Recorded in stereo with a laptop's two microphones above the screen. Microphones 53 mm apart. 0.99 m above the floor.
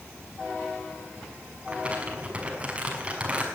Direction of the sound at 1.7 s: 25° right (ahead or behind).